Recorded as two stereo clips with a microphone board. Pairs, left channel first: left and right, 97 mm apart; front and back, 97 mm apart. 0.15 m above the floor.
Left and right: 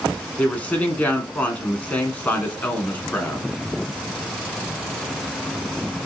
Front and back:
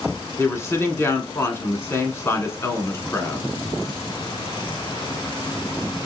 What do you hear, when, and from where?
0.4 s a woman speaking: 30° left, 1.2 m